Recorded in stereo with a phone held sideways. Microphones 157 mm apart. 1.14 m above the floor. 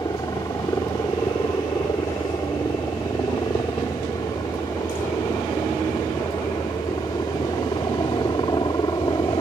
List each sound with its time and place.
0.0 s a helicopter: 25° left (ahead or behind)